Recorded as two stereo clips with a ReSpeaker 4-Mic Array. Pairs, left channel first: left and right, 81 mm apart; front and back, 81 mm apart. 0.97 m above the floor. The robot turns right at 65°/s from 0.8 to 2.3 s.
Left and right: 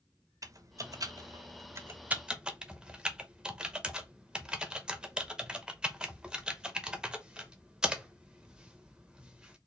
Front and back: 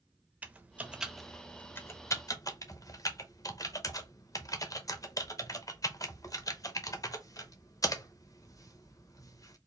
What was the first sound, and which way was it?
Typing on a keyboard, 115° right.